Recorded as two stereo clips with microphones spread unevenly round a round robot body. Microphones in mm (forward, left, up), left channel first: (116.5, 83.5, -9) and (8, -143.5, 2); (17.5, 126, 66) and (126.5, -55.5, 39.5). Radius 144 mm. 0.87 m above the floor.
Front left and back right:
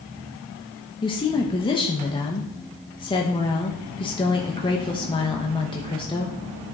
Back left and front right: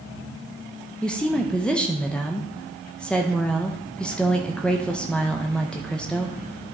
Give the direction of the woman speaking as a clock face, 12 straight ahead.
11 o'clock.